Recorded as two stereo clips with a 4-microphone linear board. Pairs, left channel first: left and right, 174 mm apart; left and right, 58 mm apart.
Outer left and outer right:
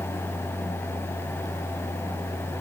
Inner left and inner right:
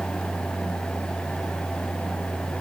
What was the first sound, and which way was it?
Only background noise.